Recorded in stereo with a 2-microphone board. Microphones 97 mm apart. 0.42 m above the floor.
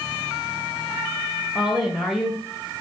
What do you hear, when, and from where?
1.6 s a woman speaking: centre (ahead or behind), 1.8 m